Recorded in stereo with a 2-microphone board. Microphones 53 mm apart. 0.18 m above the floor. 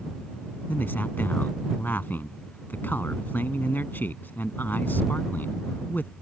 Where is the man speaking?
40° left (ahead or behind).